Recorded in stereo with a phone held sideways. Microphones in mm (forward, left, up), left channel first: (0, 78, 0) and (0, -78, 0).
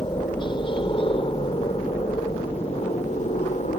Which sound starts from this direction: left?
A helicopter, at 0.0 s.